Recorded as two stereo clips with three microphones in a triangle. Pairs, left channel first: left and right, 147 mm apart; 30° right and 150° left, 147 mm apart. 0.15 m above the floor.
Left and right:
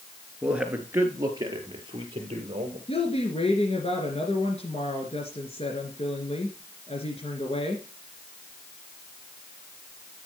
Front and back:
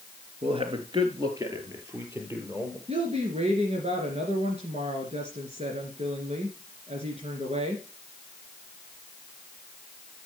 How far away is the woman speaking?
About 2.5 m.